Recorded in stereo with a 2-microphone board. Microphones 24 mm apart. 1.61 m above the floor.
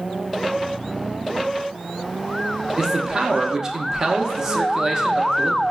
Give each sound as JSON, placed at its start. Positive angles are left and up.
{"t": 2.8, "sound": "a man speaking", "side_deg": -25, "distance_m": 0.5}